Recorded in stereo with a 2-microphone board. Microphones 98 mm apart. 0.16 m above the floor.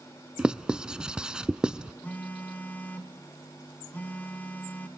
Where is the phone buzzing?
15° left (ahead or behind), 1.6 m.